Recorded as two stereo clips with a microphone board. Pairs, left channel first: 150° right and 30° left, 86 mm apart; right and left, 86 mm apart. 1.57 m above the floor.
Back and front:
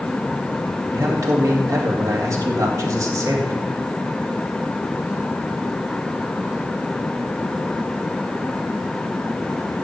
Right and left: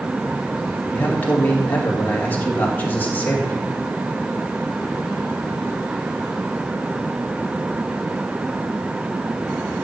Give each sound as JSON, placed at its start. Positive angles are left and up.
{"t": 0.9, "sound": "a man speaking", "azimuth_deg": -20, "distance_m": 2.5}